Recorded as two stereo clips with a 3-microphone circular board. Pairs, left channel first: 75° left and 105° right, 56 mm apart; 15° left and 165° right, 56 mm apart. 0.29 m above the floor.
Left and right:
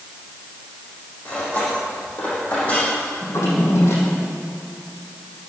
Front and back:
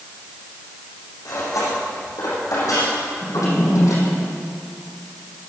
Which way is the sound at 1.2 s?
10° left.